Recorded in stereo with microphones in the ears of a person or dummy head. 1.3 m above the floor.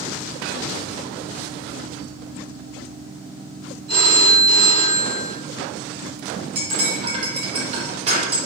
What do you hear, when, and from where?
3.9 s a phone ringing: 70° right (ahead or behind), 1.4 m
6.5 s cutlery clinking: 35° right (ahead or behind), 0.9 m